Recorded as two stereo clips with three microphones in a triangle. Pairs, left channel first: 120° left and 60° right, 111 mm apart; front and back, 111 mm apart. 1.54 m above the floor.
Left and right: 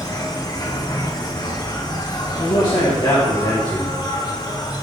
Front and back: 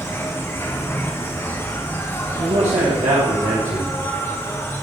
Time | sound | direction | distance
0.0 | an insect | 70° left | 1.3 m
2.3 | a man speaking | 175° left | 2 m